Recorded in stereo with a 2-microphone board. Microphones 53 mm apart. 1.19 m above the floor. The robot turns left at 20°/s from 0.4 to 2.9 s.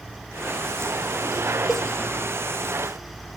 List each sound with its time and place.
1.7 s a cowbell: centre (ahead or behind), 0.9 m